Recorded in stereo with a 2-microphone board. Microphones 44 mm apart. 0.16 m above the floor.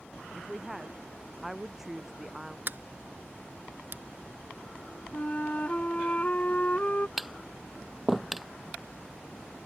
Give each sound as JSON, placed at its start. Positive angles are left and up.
{"t": 0.3, "sound": "a woman speaking", "side_deg": -5}
{"t": 2.7, "sound": "a sliding door", "side_deg": -50}
{"t": 5.1, "sound": "a flute", "side_deg": 35}
{"t": 7.2, "sound": "tapping", "side_deg": -5}